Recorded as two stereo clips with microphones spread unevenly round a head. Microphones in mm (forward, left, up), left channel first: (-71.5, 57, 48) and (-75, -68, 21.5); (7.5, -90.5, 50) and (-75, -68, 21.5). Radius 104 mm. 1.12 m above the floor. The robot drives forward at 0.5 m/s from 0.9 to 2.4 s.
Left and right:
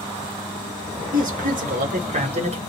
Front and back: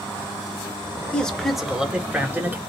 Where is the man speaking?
95° right, 1.0 m; by 2.6 s 125° right, 1.2 m.